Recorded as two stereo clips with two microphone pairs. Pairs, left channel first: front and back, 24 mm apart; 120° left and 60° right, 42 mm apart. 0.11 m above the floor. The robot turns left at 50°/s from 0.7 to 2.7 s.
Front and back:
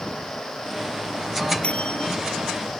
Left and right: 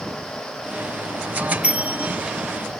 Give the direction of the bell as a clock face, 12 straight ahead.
12 o'clock.